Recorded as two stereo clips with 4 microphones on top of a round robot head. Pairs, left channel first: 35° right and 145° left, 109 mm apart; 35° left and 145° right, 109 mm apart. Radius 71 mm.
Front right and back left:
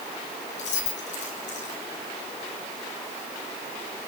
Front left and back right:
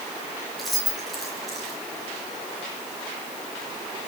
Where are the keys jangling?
55° right, 5.5 m.